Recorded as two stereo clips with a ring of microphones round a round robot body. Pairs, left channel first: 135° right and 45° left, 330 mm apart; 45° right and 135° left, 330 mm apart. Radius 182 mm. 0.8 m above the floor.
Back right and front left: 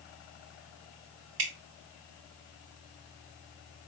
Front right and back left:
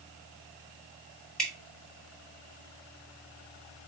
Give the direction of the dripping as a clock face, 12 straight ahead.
11 o'clock.